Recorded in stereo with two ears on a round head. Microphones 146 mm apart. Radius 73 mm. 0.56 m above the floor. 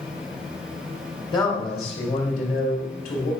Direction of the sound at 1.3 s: 25° left (ahead or behind).